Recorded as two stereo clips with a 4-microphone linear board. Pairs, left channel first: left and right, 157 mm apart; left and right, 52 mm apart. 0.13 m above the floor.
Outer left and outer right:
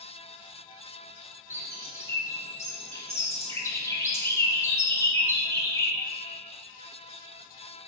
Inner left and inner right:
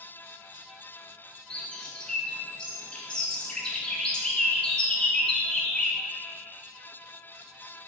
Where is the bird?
15° left (ahead or behind), 0.5 m.